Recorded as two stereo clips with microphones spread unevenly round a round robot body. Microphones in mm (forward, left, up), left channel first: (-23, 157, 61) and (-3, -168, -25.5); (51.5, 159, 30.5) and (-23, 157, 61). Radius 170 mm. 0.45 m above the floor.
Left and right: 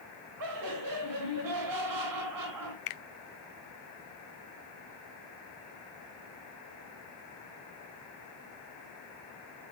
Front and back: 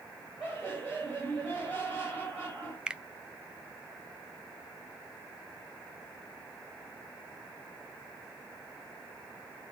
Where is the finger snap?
85° left, 0.8 m.